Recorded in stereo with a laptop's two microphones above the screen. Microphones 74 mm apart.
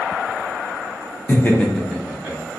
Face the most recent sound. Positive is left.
turn(degrees=-25)  # may be behind; listen again after turning